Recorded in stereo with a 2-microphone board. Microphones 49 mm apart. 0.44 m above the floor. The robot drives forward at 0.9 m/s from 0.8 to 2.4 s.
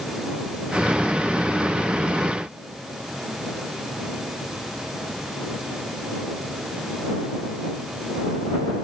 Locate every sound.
Only background noise.